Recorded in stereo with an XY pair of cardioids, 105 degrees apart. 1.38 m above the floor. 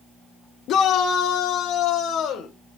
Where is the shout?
65° left, 0.5 m; by 2.5 s 75° left, 1.5 m.